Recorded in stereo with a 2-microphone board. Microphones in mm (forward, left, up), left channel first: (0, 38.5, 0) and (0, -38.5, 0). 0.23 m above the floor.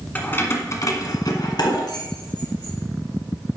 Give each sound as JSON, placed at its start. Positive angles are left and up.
{"t": 0.1, "sound": "keys jangling", "side_deg": 25, "distance_m": 1.4}